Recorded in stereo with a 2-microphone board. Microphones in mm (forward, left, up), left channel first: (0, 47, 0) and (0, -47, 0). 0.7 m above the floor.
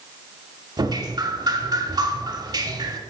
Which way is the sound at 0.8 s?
45° right (ahead or behind).